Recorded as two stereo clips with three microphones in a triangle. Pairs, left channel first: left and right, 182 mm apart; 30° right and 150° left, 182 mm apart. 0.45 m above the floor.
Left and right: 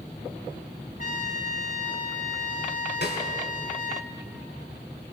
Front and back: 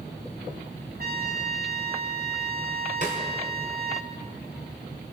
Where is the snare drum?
105° left, 5.5 m.